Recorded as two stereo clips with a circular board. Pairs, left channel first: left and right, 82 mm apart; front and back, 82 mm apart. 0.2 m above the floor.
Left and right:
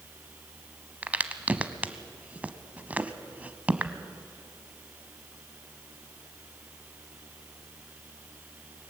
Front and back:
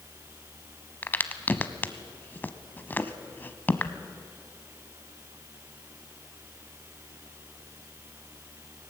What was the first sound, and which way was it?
A crack, 35° right.